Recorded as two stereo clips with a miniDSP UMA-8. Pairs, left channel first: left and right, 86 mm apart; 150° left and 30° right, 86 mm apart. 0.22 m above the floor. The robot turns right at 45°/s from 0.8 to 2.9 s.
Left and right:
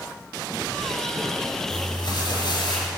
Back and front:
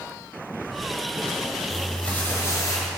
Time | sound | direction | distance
1.7 | crumpling | 55° left | 4 m